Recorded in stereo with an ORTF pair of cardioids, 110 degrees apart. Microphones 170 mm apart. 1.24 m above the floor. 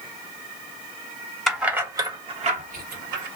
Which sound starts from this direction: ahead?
Keys jangling, at 1.5 s.